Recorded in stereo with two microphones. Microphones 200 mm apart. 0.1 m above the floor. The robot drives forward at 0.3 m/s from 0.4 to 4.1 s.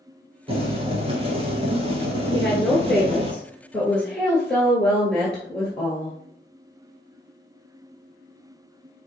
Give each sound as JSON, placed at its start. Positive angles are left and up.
{"t": 0.5, "sound": "boiling", "side_deg": -30, "distance_m": 1.4}
{"t": 2.3, "sound": "a woman speaking", "side_deg": 5, "distance_m": 1.2}